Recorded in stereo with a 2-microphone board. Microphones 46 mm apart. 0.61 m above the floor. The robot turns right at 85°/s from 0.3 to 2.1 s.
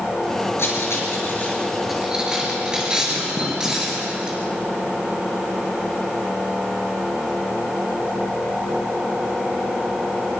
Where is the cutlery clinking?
70° left (ahead or behind), 5.5 m; by 4.4 s 20° right (ahead or behind), 5.5 m.